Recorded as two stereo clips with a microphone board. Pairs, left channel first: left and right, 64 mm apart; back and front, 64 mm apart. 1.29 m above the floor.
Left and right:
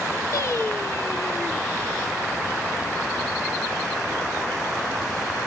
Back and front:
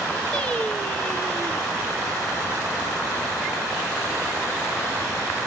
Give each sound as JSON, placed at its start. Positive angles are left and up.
{"t": 0.3, "sound": "singing", "azimuth_deg": 110, "distance_m": 0.8}